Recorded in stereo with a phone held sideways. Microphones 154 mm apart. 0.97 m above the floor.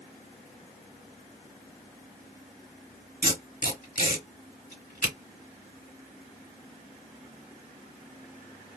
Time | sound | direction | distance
3.2 | tape being pulled | 70° left (ahead or behind) | 2 m